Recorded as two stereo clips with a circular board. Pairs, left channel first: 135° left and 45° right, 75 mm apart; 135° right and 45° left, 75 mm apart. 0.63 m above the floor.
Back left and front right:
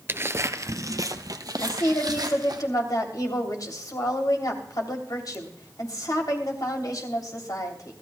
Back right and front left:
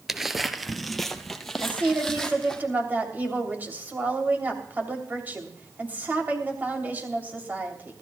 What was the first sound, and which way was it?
Footsteps, 35° right.